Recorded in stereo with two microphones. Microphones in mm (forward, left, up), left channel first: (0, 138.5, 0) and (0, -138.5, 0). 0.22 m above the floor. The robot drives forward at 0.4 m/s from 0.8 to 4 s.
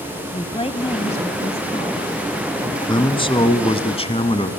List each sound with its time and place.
0.3 s a woman speaking: 20° left (ahead or behind), 1.0 m
2.8 s a man speaking: 15° left (ahead or behind), 1.9 m; by 4.5 s 20° left (ahead or behind), 1.6 m